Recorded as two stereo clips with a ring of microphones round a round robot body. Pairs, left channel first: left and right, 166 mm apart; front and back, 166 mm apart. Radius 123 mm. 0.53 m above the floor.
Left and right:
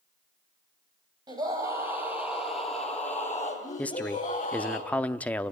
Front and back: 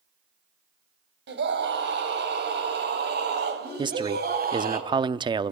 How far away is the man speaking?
About 0.7 m.